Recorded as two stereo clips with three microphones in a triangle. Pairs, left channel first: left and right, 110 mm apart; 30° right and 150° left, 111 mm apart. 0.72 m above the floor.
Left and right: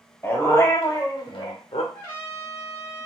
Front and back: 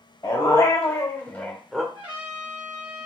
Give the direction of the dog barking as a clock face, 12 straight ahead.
11 o'clock.